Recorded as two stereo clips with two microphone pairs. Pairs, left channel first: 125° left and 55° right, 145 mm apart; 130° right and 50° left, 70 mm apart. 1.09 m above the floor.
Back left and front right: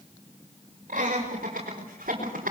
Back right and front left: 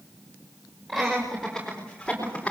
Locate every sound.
0.9 s laughter: 35° right, 6 m; by 2.5 s 55° right, 4 m